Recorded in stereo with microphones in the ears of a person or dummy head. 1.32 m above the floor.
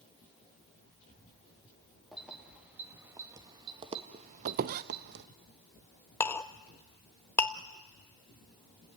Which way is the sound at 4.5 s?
55° right (ahead or behind).